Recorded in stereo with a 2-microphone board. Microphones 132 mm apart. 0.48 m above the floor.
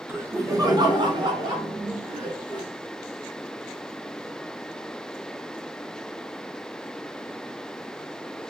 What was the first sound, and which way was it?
Laughter, 15° right (ahead or behind).